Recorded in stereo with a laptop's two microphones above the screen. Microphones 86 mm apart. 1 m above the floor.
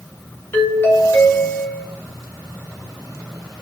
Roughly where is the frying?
No frying in this recording.